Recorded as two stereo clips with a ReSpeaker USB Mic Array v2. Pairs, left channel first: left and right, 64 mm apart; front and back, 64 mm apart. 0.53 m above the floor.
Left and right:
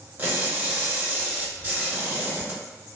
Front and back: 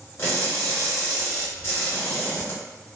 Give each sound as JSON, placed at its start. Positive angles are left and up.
{"t": 0.2, "sound": "crushing", "azimuth_deg": -35, "distance_m": 1.4}